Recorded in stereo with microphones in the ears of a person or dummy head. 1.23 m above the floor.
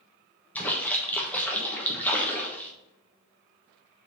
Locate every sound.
0.6 s a splash: 5° left (ahead or behind), 1.3 m